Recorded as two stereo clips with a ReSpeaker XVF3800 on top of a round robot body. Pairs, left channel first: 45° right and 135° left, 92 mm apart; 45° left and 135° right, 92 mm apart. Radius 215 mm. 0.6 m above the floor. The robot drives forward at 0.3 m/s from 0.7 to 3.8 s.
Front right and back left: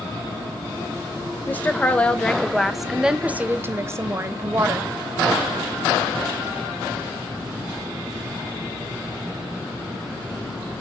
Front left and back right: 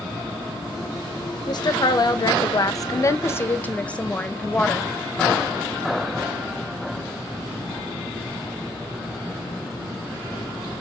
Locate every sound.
1.5 s a woman speaking: 20° left, 0.9 m; by 4.9 s 110° left, 0.6 m